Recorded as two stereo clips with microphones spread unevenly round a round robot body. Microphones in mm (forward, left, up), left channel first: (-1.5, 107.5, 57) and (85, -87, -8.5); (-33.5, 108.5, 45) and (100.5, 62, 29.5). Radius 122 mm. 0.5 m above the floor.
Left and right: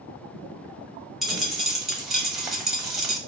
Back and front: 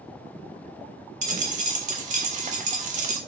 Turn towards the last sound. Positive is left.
turn(degrees=25)